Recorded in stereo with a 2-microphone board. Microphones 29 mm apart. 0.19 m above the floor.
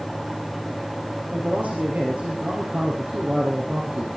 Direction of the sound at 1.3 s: 65° right (ahead or behind).